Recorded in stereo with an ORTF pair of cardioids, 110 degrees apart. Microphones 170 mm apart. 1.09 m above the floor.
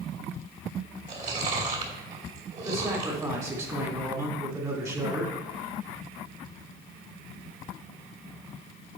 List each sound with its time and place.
1.1 s chewing: 45° right, 3 m
2.6 s a man speaking: 20° right, 2.5 m